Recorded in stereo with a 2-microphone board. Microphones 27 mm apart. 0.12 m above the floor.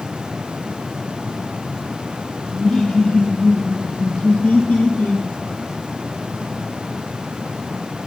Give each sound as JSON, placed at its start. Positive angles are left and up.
{"t": 2.5, "sound": "laughter", "side_deg": 15, "distance_m": 4.0}